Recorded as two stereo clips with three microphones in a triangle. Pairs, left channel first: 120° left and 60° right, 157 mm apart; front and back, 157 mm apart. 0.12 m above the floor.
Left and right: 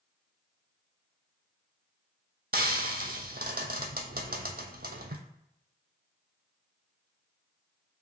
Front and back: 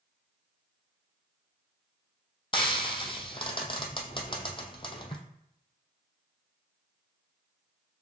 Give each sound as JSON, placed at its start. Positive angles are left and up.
{"t": 2.5, "sound": "frying", "azimuth_deg": -60, "distance_m": 0.7}